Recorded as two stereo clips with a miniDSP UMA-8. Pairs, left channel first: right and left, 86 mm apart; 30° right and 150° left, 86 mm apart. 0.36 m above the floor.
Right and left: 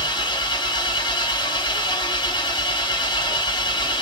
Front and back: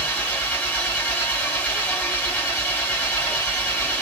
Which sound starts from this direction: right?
An engine running, at 0.0 s.